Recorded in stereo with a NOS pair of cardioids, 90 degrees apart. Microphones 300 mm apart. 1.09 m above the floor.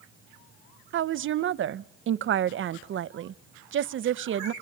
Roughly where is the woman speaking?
Ahead right.